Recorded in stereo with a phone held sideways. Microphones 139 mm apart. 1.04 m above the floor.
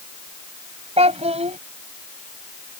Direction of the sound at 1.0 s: 50° right (ahead or behind).